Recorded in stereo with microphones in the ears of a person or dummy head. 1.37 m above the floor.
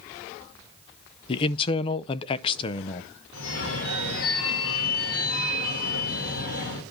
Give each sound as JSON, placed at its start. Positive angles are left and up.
{"t": 1.3, "sound": "a man speaking", "side_deg": 30, "distance_m": 0.5}
{"t": 3.3, "sound": "a phone ringing", "side_deg": 80, "distance_m": 3.0}